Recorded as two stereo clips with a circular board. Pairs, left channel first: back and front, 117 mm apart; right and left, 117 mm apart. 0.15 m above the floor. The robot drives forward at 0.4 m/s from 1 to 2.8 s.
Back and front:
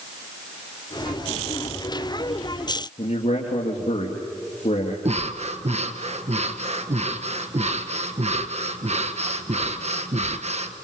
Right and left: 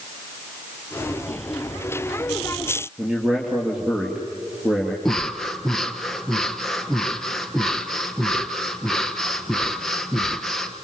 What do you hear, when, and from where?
3.0 s a man speaking: 175° left, 3.5 m
5.0 s breathing: 5° right, 1.4 m